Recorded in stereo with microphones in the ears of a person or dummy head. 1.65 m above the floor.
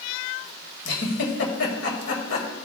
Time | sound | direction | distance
0.8 | a giggle | 75° left (ahead or behind) | 1.9 m